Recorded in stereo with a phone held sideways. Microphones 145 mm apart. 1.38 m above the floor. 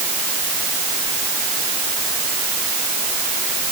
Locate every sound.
Only background noise.